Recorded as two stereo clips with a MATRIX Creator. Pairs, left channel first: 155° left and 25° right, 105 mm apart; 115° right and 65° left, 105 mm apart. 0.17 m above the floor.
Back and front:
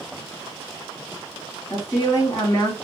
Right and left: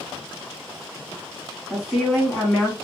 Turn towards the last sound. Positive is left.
turn(degrees=150)